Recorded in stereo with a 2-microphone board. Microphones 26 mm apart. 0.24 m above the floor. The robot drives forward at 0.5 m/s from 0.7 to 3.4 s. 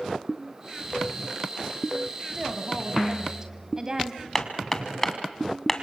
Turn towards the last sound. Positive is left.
turn(degrees=15)  # may be behind; listen again after turning